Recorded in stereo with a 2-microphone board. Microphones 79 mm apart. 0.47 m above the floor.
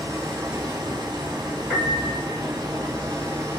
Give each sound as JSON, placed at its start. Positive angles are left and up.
{"t": 0.0, "sound": "running water", "side_deg": -60, "distance_m": 1.0}
{"t": 1.7, "sound": "a piano", "side_deg": -20, "distance_m": 2.5}